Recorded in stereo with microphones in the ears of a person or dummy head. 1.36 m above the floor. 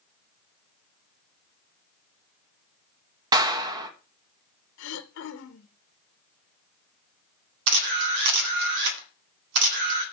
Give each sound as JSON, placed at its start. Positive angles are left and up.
{"t": 3.3, "sound": "a clap", "side_deg": -25, "distance_m": 1.2}
{"t": 4.8, "sound": "throat clearing", "side_deg": 85, "distance_m": 0.9}
{"t": 7.7, "sound": "a camera shutter", "side_deg": -70, "distance_m": 1.8}